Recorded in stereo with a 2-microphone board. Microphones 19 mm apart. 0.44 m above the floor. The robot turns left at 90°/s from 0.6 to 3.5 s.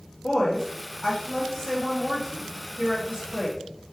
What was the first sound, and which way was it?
A woman speaking, 120° left.